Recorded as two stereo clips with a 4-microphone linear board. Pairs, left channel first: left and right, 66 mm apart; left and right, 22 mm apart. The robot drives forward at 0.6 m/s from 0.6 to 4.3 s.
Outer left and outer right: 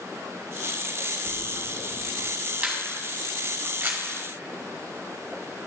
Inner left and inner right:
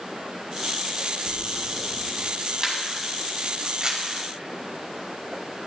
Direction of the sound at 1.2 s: 35° left (ahead or behind).